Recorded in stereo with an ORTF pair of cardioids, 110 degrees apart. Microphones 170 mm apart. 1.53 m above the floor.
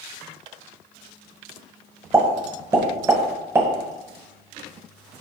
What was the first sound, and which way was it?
A pop, 15° right.